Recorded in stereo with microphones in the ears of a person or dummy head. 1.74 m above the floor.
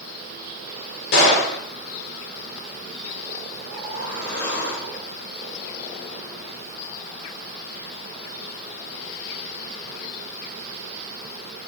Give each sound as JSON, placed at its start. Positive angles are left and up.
{"t": 1.1, "sound": "a gunshot", "side_deg": 70, "distance_m": 3.5}
{"t": 3.6, "sound": "a whoosh", "side_deg": 70, "distance_m": 5.5}